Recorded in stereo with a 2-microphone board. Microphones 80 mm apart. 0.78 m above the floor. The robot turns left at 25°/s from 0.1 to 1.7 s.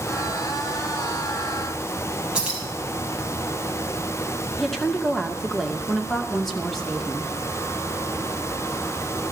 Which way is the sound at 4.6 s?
5° left (ahead or behind).